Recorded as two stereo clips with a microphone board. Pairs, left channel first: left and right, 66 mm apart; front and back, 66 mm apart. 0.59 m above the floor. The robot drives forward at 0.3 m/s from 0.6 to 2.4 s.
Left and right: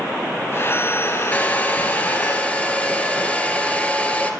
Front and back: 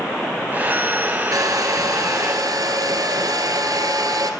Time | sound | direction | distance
1.3 | a hair dryer | 155° left | 2.5 m